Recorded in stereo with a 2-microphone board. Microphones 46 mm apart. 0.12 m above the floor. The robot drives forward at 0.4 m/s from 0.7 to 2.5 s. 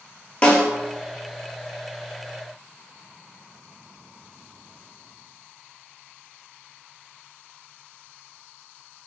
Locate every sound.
0.4 s a snare drum: 25° left (ahead or behind), 0.7 m